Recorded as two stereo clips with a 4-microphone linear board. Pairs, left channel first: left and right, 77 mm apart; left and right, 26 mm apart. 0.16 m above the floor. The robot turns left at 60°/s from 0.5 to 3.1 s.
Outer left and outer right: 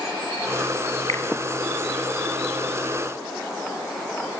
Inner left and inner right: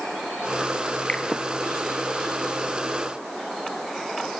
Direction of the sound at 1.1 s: 40° left (ahead or behind).